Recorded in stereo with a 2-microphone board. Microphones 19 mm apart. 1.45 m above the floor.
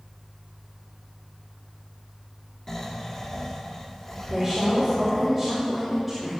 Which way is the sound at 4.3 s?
10° left (ahead or behind).